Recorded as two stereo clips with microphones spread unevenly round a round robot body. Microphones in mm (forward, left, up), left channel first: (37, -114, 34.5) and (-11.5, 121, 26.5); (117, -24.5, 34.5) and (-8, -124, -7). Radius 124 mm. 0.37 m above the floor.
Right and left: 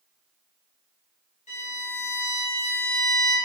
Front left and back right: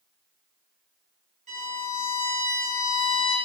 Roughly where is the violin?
Behind right.